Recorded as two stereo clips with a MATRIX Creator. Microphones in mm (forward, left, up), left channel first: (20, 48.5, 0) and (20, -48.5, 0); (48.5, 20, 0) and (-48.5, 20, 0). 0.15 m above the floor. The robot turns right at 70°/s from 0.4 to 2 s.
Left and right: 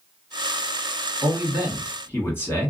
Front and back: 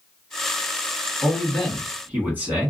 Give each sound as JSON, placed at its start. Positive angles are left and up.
{"t": 1.2, "sound": "a man speaking", "azimuth_deg": 70, "distance_m": 1.5}